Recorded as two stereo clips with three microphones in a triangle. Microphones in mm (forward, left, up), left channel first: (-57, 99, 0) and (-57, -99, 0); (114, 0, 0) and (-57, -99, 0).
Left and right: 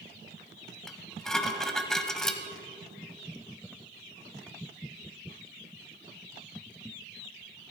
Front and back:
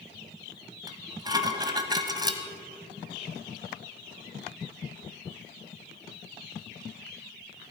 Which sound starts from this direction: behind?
Dishes clattering, at 0.9 s.